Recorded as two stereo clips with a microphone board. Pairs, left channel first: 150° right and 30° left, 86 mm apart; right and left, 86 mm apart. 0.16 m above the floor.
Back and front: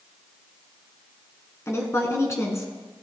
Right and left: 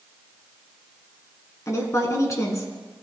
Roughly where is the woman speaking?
Behind right.